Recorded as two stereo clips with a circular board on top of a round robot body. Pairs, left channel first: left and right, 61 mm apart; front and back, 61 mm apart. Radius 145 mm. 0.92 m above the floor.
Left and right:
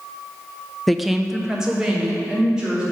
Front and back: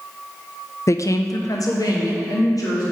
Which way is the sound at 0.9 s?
5° left.